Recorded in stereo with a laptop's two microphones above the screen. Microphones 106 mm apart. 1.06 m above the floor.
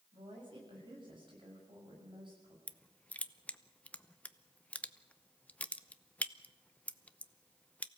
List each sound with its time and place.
0.1 s a woman speaking: 50° right (ahead or behind), 6.5 m
2.7 s crushing: 15° left (ahead or behind), 0.7 m